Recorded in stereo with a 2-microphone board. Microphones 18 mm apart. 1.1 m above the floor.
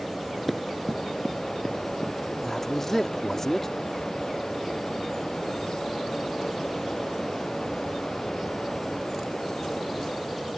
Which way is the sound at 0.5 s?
5° left (ahead or behind).